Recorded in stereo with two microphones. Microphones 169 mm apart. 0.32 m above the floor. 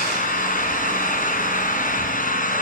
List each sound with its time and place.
0.0 s an engine running: 55° left (ahead or behind), 3.5 m